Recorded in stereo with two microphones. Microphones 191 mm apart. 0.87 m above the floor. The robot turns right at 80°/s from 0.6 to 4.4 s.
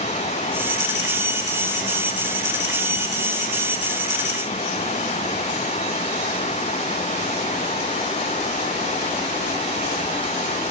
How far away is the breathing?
No breathing in this recording.